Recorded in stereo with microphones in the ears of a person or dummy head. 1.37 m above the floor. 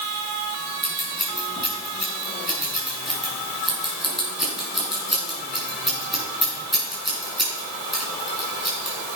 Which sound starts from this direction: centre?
Scissors, at 0.8 s.